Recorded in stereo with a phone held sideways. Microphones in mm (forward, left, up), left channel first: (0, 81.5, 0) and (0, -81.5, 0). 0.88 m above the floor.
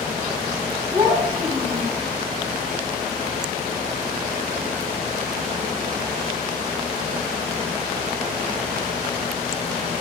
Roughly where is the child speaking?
Right.